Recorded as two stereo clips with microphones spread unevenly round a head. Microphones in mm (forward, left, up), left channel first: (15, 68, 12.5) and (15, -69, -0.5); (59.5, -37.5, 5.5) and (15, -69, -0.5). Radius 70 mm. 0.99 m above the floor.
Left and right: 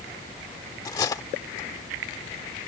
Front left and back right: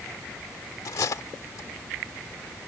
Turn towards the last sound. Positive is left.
turn(degrees=25)